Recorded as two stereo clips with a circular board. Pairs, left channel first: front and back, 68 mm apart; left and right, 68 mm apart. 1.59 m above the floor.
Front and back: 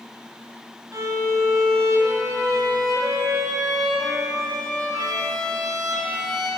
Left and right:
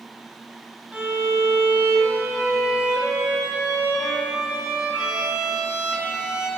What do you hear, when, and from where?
0.9 s a violin: 160° right, 1.6 m